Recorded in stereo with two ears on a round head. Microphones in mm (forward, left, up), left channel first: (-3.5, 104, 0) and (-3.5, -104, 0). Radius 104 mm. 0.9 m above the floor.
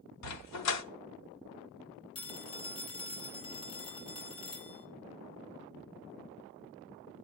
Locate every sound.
0.2 s a dog barking: 80° left, 1.1 m
2.1 s a phone ringing: 20° left (ahead or behind), 2.5 m